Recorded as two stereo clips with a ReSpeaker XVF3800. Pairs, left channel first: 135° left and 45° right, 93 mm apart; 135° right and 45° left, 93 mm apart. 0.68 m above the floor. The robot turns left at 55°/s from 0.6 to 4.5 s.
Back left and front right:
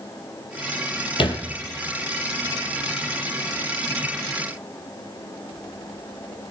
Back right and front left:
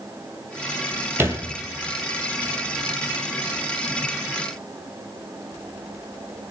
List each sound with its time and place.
1.2 s a thud: 110° left, 2.5 m; by 1.4 s 95° left, 2.5 m